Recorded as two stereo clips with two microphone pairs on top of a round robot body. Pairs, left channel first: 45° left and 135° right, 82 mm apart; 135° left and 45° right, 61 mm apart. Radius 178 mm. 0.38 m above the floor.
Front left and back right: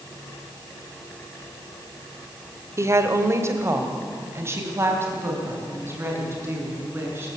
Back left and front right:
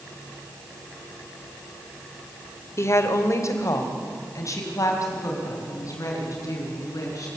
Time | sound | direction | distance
2.8 | a woman speaking | 170° left | 2 m